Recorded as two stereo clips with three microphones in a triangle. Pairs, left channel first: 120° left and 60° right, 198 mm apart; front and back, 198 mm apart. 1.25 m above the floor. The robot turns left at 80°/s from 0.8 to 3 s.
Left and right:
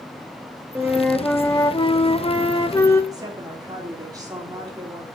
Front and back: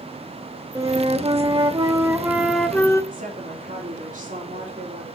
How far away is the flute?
About 1.0 m.